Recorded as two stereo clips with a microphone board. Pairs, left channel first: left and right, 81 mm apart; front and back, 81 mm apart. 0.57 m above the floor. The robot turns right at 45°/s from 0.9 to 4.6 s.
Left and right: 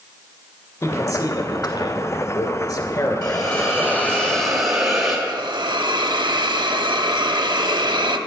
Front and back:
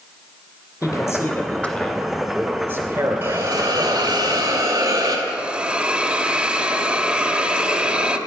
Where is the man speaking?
35° left, 2 m; by 4.2 s 175° right, 2 m.